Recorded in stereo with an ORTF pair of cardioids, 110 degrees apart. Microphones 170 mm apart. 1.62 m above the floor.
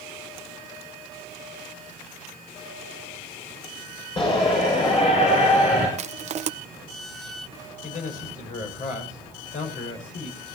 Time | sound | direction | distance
4.2 | a shout | 30° left | 6.5 m
6.0 | crushing | 45° right | 1.1 m
7.8 | a man speaking | 45° left | 7 m